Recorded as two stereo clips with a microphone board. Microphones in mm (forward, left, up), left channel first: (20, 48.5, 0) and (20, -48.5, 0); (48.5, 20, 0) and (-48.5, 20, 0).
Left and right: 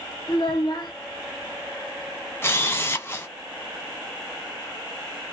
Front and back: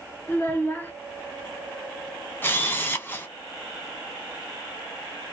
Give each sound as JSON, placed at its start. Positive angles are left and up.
{"t": 0.3, "sound": "a child speaking", "azimuth_deg": 65, "distance_m": 1.3}
{"t": 2.4, "sound": "a camera shutter", "azimuth_deg": 50, "distance_m": 0.8}